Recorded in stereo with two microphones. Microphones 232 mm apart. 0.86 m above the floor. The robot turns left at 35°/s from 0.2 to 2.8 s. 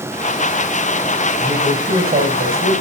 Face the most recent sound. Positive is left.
turn(degrees=-70)